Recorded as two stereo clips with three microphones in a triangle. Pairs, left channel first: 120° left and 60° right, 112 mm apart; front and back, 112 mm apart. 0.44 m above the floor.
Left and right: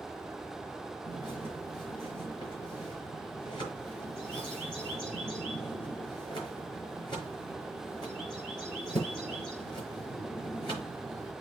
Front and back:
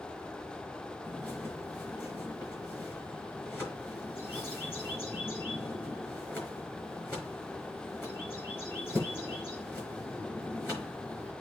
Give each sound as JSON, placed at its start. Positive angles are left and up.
{"t": 1.1, "sound": "a bird", "azimuth_deg": 70, "distance_m": 5.0}